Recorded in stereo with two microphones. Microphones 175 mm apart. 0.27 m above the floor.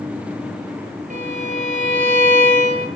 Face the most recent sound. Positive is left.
turn(degrees=-45)  # may be behind; listen again after turning